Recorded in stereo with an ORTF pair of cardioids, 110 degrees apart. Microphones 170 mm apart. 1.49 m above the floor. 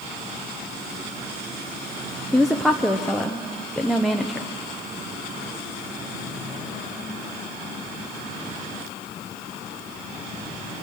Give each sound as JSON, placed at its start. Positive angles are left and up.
{"t": 2.3, "sound": "a woman speaking", "azimuth_deg": 0, "distance_m": 1.0}